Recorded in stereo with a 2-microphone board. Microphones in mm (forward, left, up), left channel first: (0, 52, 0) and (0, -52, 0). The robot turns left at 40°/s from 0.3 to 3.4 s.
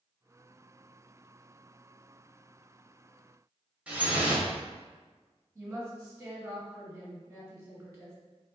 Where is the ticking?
I don't hear ticking.